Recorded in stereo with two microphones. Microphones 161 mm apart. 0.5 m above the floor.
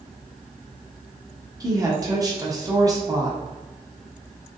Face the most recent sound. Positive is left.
turn(degrees=-20)  # may be behind; listen again after turning